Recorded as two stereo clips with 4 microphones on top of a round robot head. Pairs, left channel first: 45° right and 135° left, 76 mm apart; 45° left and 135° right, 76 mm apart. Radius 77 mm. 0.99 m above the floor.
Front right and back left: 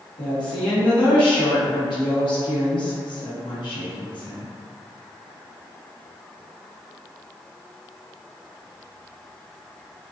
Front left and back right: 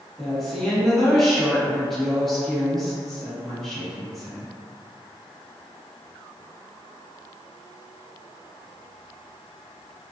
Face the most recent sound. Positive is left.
turn(degrees=-40)